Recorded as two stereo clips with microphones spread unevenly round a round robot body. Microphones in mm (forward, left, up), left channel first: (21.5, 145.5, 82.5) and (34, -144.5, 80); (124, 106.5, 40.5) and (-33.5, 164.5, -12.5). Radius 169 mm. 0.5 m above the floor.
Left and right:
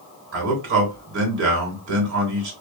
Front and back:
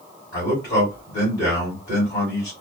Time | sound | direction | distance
0.3 | a man speaking | 105° right | 1.3 m